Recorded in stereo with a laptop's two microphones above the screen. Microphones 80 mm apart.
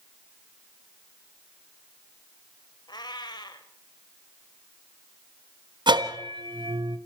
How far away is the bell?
About 1.4 m.